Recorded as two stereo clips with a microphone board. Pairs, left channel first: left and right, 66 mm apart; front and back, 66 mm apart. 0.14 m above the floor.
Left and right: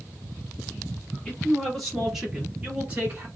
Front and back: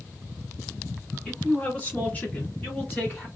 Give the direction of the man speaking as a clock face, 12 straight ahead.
11 o'clock.